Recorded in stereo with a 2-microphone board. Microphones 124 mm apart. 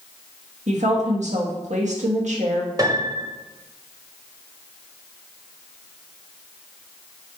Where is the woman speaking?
70° right (ahead or behind), 1.7 m.